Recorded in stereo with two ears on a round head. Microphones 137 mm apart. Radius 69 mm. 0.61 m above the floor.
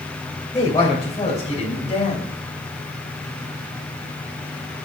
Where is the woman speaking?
20° left (ahead or behind), 3 m; by 2.2 s 40° left (ahead or behind), 4 m.